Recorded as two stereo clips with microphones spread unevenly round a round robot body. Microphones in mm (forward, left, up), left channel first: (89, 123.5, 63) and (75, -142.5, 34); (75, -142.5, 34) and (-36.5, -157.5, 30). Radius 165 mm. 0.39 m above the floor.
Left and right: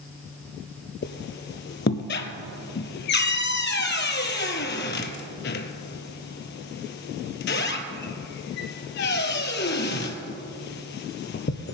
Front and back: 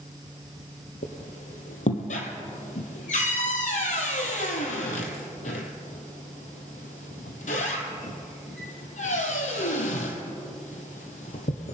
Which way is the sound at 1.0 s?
40° left.